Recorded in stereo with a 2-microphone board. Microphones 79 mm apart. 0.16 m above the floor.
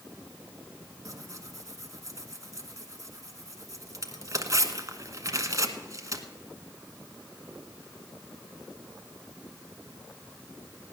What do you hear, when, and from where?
1.1 s tearing paper: 45° right (ahead or behind), 1.2 m